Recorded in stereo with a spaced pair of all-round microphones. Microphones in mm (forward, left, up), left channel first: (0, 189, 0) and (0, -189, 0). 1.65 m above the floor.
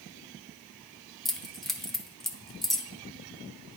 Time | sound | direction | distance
1.2 | keys jangling | centre (ahead or behind) | 0.7 m